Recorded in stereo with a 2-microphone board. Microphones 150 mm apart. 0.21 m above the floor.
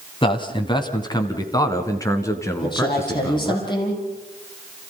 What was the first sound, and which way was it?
A man speaking, 30° left (ahead or behind).